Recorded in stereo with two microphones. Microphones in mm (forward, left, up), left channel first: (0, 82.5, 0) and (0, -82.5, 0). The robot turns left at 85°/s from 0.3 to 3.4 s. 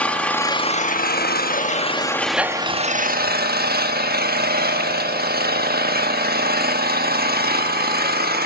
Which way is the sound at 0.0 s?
170° left.